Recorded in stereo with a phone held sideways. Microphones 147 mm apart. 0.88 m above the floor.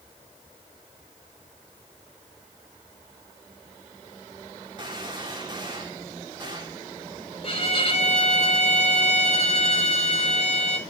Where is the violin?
40° left (ahead or behind), 3.5 m.